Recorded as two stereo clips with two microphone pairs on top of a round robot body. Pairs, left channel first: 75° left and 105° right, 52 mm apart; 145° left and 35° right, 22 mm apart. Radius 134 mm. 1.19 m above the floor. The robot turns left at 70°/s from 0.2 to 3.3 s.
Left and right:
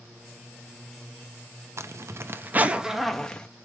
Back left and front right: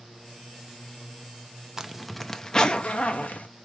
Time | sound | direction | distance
1.8 | a zipper | 95° right | 0.7 m